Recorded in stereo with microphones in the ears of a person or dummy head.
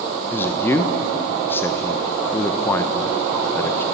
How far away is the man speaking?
About 1.2 m.